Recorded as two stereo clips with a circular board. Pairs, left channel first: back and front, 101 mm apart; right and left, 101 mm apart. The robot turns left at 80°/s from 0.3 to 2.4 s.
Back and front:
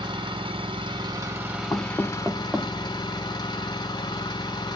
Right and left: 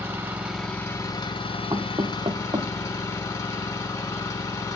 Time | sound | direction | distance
0.0 | an engine running | 25° left | 0.8 m
1.7 | knocking | 130° left | 0.6 m